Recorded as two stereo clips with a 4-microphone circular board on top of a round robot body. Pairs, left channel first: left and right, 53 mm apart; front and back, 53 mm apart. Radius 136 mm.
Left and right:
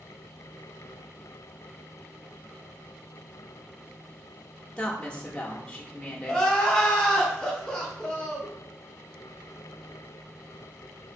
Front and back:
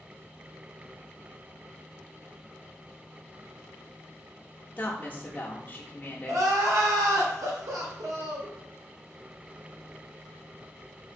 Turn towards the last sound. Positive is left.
turn(degrees=165)